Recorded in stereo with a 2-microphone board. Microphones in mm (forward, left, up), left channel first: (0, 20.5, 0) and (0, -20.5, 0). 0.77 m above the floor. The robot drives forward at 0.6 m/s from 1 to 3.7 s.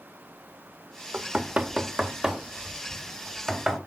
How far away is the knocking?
About 0.6 m.